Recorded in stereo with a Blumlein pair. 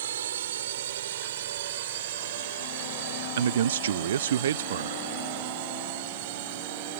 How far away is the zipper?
I don't hear a zipper.